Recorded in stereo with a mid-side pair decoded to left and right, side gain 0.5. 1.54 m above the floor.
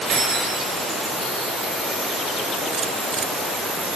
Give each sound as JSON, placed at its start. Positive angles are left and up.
{"t": 0.1, "sound": "keys jangling", "azimuth_deg": -50, "distance_m": 1.8}